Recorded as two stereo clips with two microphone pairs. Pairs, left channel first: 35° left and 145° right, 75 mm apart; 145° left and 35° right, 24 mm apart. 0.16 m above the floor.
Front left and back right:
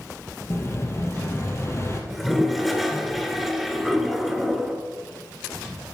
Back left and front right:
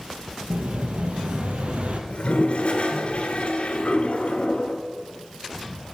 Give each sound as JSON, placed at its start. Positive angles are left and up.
{"t": 0.5, "sound": "an explosion", "azimuth_deg": -15, "distance_m": 1.2}
{"t": 2.1, "sound": "a toilet flushing", "azimuth_deg": 130, "distance_m": 1.2}